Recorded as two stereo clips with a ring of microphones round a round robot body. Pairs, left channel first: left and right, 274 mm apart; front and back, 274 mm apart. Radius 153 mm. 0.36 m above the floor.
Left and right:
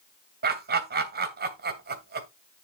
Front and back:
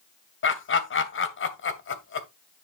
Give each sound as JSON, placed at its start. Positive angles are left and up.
{"t": 0.4, "sound": "laughter", "azimuth_deg": -35, "distance_m": 2.5}